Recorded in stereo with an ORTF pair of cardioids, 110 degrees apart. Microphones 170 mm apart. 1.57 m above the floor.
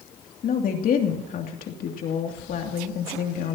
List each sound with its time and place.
0.4 s a woman speaking: 55° left, 2.5 m